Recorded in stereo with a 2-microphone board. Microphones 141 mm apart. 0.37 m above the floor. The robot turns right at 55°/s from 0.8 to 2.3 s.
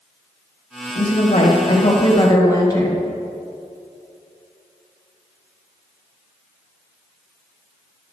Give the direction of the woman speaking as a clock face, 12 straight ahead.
10 o'clock.